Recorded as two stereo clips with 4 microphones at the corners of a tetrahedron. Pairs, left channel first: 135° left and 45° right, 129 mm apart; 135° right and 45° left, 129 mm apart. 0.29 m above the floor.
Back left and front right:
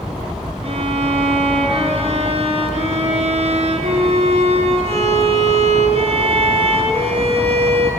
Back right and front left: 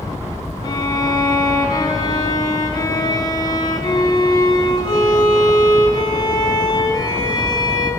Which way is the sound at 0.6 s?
80° right.